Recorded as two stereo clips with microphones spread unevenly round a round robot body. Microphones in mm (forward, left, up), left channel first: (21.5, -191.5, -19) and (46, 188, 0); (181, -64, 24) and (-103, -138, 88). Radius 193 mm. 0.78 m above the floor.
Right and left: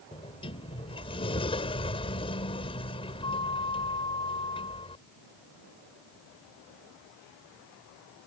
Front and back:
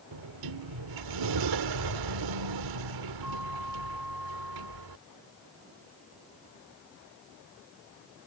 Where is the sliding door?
170° right.